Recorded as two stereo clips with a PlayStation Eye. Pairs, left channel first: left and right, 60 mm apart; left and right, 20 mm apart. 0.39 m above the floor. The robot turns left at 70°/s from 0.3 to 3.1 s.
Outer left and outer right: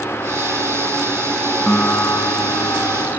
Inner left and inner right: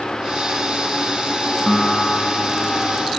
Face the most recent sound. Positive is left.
turn(degrees=55)